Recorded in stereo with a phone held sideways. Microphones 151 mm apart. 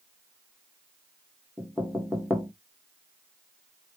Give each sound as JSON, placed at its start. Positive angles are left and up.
{"t": 1.6, "sound": "knocking", "side_deg": -5, "distance_m": 1.8}